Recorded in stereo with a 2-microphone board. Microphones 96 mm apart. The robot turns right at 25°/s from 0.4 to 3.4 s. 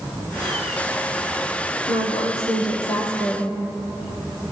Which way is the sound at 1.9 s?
115° left.